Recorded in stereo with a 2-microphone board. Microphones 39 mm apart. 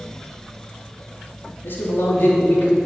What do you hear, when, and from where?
1.6 s a man speaking: 65° left (ahead or behind), 3 m